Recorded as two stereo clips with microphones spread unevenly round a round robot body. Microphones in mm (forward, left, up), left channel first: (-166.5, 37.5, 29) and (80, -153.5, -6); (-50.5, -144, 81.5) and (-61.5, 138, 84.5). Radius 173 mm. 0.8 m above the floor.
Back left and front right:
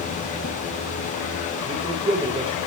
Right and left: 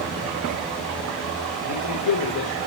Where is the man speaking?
110° right, 2.5 m.